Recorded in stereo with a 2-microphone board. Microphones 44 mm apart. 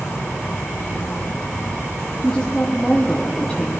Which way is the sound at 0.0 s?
80° left.